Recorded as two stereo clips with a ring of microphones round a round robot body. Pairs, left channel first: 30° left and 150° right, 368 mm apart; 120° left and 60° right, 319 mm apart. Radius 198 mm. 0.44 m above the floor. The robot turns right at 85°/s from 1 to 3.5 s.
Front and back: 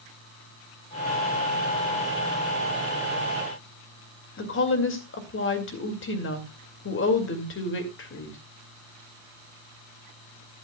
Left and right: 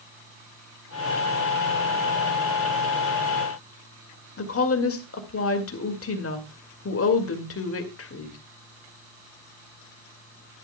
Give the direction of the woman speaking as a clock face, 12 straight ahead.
9 o'clock.